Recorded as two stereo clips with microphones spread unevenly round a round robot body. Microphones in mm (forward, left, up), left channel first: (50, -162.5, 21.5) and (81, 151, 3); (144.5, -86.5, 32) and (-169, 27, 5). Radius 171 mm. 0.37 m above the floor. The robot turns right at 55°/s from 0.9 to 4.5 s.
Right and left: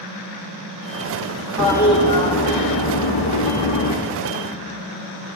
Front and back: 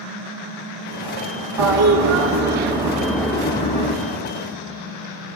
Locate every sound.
1.6 s a toilet flushing: 170° left, 2.5 m; by 3.9 s 60° right, 2.5 m